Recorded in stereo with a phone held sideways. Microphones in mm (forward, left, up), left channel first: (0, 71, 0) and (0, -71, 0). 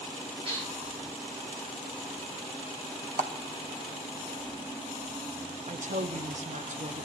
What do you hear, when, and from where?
0.5 s dishes clattering: 45° right (ahead or behind), 8 m
3.2 s a clap: 70° right (ahead or behind), 1.1 m
5.7 s a woman speaking: 60° right (ahead or behind), 0.7 m